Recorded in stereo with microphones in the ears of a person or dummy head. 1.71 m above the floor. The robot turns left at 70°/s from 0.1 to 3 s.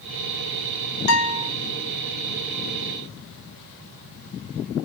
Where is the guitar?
110° left, 0.8 m; by 1.5 s 80° left, 0.8 m.